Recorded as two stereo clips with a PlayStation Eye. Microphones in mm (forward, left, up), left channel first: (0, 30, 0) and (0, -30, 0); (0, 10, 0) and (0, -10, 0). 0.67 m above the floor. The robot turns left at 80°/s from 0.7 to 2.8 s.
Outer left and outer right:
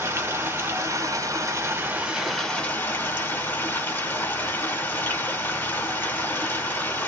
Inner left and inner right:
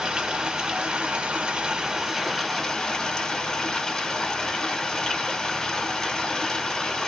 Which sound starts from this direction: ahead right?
Running water, at 0.0 s.